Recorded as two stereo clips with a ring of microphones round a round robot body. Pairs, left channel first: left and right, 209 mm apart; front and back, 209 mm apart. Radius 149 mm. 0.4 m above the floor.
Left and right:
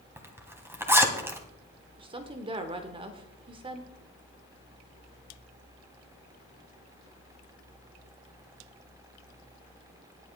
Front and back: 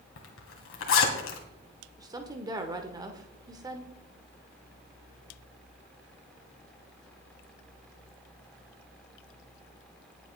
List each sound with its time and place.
0.2 s a zipper: 10° right, 2.5 m
2.0 s a woman speaking: 125° right, 1.1 m